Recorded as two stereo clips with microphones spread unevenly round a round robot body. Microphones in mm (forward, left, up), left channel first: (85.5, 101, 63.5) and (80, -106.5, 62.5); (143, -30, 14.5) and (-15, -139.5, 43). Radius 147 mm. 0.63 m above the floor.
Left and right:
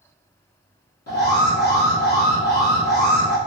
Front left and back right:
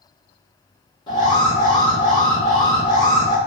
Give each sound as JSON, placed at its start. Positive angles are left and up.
{"t": 1.1, "sound": "an alarm", "azimuth_deg": 90, "distance_m": 1.2}